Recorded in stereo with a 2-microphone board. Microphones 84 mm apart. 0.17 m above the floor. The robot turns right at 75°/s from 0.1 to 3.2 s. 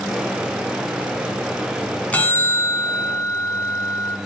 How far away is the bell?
About 1.9 m.